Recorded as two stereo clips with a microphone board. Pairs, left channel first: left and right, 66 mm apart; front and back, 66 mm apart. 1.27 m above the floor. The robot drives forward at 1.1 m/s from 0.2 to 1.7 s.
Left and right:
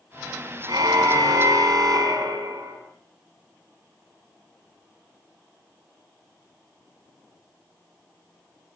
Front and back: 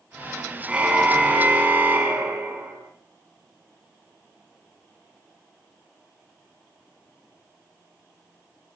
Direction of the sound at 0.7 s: 105° right.